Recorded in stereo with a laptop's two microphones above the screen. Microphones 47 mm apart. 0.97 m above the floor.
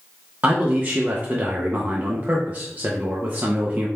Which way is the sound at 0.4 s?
35° right (ahead or behind).